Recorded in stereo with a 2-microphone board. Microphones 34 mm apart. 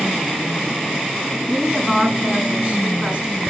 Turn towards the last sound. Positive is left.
turn(degrees=-30)  # may be behind; listen again after turning